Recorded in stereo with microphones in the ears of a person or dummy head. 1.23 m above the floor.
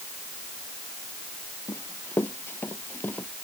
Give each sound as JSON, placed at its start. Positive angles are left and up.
{"t": 1.7, "sound": "running footsteps", "side_deg": 15}